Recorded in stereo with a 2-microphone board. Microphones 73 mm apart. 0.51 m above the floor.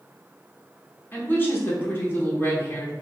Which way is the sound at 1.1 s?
30° left (ahead or behind).